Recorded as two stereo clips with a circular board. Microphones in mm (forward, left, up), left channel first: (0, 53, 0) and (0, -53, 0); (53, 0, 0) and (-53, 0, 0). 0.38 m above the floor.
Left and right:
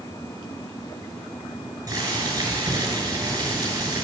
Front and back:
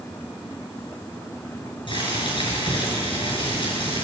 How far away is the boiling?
About 6 m.